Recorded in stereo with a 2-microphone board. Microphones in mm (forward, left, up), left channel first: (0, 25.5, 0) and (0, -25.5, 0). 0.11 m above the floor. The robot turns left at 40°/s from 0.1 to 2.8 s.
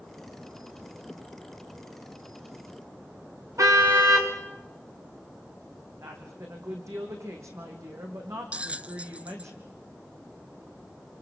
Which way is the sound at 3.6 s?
85° right.